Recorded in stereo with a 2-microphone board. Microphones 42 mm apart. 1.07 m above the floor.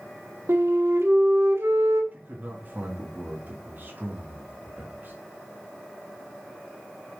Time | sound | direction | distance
0.5 | a flute | 75° right (ahead or behind) | 1.4 m
2.1 | a man speaking | 45° right (ahead or behind) | 2 m